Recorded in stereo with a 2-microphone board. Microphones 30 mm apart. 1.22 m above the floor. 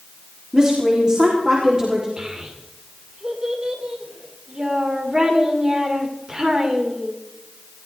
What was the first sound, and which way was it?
A woman speaking, 25° right (ahead or behind).